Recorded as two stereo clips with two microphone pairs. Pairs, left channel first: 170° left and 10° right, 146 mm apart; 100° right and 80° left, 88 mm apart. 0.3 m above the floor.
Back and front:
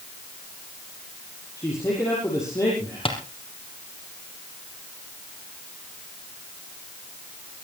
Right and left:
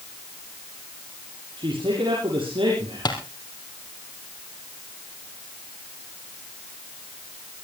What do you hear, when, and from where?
1.6 s a man speaking: 100° left, 6.5 m
3.0 s tapping: 140° right, 3 m